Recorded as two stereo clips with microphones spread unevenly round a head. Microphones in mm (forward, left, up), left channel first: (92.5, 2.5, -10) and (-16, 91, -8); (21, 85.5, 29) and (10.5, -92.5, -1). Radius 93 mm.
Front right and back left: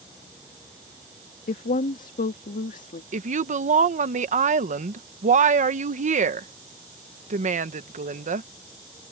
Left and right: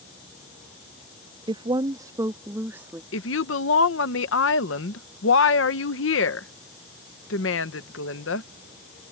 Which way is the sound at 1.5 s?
30° right.